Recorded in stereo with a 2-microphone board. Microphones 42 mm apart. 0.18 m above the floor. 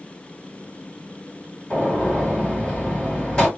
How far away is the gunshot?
About 1.8 m.